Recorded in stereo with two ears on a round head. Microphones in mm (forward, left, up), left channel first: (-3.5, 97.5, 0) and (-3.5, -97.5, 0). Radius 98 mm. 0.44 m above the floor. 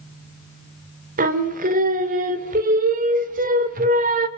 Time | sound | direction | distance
1.2 | singing | 40° right (ahead or behind) | 1.5 m